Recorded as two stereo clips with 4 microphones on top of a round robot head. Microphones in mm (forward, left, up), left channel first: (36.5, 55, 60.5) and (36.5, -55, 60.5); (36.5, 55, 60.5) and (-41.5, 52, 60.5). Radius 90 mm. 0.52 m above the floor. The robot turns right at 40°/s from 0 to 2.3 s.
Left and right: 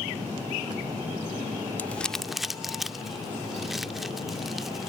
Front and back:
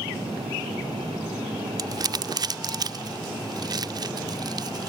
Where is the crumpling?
160° left; by 4.9 s straight behind.